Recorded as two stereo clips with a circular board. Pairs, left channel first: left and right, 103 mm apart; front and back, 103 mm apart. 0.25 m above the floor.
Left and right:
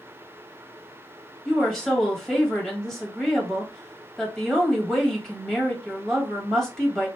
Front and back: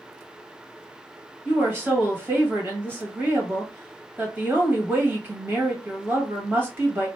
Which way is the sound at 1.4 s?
170° left.